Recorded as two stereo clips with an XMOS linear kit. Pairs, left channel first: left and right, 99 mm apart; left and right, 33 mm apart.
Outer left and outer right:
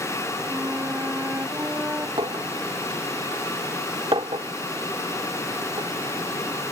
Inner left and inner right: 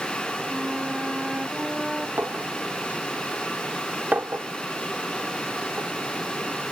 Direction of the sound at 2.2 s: 60° right (ahead or behind).